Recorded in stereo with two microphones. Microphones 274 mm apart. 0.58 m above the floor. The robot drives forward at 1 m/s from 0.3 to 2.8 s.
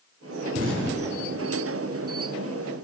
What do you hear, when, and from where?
0.6 s an explosion: 50° right (ahead or behind), 1.7 m; by 1.6 s 35° right (ahead or behind), 2.5 m